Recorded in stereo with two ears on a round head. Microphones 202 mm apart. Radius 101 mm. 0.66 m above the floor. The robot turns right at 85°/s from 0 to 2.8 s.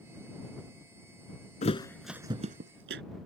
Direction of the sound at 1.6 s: 35° left (ahead or behind).